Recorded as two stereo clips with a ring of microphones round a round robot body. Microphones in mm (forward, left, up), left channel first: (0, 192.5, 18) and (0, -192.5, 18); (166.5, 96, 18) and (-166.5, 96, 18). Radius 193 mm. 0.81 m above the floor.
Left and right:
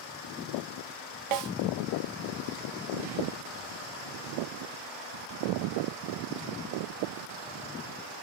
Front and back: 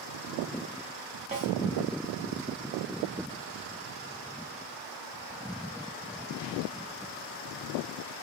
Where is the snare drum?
105° right, 0.6 m.